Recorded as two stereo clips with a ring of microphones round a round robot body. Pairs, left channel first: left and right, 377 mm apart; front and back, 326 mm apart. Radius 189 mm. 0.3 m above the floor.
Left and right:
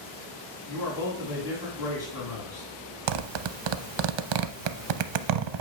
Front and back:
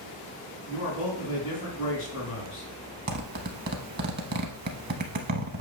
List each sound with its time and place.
0.7 s a man speaking: 10° left, 3 m
3.1 s a zipper: 115° right, 0.6 m